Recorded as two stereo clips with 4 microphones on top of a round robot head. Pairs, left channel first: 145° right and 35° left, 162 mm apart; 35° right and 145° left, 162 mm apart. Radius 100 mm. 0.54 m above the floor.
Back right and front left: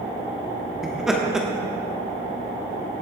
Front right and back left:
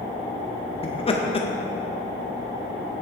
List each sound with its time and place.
0.8 s laughter: 50° right, 1.3 m